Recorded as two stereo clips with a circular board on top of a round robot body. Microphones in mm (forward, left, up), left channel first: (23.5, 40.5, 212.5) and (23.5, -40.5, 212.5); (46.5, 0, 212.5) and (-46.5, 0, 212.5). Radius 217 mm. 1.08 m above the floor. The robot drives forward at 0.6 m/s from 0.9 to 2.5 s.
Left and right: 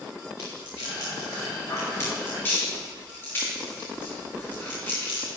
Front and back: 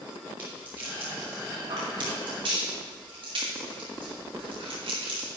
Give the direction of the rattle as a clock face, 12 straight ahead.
8 o'clock.